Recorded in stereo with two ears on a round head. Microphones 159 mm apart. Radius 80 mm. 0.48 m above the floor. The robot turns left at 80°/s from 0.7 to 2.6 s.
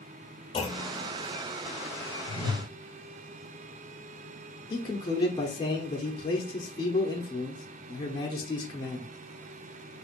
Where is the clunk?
25° left (ahead or behind), 1.3 m; by 1.1 s 35° left (ahead or behind), 1.3 m.